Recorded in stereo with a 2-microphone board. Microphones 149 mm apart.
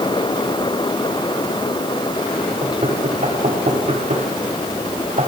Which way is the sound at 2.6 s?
50° right (ahead or behind).